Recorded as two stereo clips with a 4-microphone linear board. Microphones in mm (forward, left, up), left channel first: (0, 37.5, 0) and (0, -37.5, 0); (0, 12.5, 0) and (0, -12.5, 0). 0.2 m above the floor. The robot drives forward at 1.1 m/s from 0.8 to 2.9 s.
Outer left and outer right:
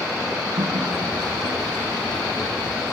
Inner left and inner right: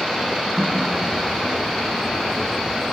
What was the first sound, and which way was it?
A running tap, 70° right (ahead or behind).